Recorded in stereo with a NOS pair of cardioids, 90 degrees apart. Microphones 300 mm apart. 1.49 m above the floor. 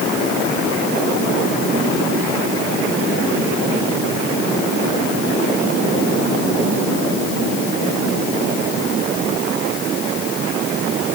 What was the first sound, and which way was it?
Only background noise.